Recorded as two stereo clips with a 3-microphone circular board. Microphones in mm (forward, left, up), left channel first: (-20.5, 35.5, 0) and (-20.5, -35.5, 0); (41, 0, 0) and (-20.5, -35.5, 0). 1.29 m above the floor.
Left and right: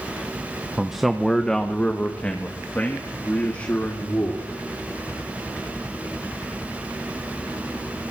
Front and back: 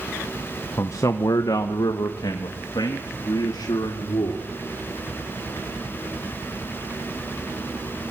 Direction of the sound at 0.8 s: 10° right.